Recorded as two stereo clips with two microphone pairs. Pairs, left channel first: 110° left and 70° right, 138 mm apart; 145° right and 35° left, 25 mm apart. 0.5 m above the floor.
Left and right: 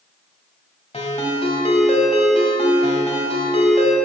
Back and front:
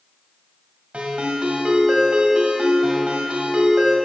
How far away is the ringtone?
About 1.5 m.